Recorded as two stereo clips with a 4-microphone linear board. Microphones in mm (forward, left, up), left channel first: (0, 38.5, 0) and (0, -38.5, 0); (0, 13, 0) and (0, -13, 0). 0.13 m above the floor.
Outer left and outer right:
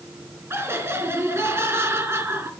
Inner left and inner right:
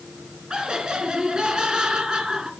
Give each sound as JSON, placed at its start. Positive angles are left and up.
{"t": 0.5, "sound": "laughter", "side_deg": -35, "distance_m": 1.9}